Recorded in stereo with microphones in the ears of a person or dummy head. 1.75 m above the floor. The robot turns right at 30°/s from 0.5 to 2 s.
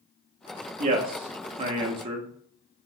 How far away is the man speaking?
About 0.5 m.